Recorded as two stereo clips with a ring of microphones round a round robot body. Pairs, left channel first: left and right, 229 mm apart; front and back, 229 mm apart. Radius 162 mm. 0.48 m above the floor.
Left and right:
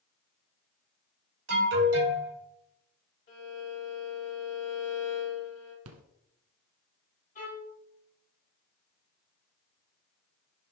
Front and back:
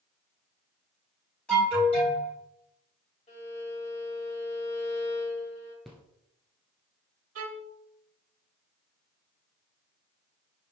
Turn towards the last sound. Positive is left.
turn(degrees=160)